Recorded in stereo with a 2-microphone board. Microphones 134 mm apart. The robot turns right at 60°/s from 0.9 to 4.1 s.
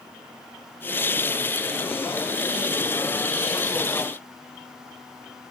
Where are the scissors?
No scissors in this recording.